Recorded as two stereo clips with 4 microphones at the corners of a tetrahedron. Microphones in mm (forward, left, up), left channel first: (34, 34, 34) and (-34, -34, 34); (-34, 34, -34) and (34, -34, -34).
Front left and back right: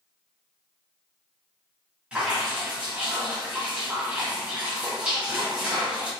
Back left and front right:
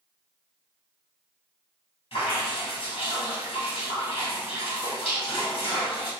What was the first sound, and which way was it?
Dripping, 145° left.